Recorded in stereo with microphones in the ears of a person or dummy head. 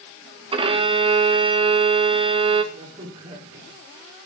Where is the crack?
35° right (ahead or behind), 4 m.